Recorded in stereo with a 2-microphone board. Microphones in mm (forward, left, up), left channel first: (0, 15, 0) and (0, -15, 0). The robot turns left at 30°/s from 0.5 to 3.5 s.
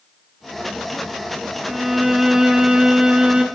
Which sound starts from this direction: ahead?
A violin, at 1.7 s.